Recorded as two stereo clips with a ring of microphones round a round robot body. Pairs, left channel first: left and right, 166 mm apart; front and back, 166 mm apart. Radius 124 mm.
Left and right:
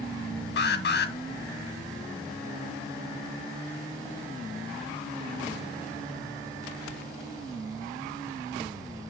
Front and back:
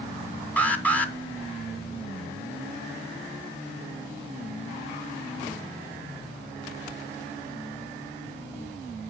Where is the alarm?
80° left, 1.3 m.